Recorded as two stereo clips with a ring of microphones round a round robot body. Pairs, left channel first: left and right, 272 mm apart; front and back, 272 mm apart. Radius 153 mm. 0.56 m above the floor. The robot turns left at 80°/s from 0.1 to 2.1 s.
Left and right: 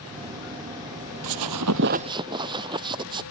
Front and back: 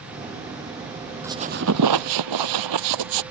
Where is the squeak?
95° right; by 3.2 s 165° right.